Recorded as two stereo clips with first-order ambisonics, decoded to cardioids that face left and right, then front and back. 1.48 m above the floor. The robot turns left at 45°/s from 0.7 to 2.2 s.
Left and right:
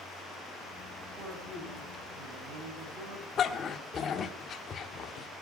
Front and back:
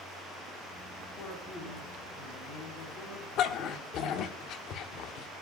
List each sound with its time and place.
1.2 s a man speaking: 20° right, 9 m; by 3.3 s 65° right, 9 m
3.4 s a dog barking: 35° left, 1.5 m